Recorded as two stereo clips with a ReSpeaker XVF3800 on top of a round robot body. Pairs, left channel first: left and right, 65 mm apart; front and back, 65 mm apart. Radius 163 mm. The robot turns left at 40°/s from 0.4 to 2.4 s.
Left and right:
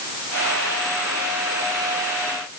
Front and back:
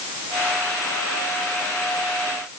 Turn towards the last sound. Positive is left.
No sound to turn to.